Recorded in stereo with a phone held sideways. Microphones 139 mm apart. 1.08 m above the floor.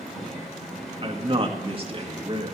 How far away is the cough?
I don't hear a cough.